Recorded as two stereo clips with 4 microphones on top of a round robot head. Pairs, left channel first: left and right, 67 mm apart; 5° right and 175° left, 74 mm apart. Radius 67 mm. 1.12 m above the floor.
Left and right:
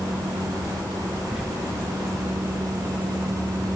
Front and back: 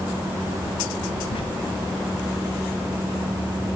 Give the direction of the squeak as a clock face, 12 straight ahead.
12 o'clock.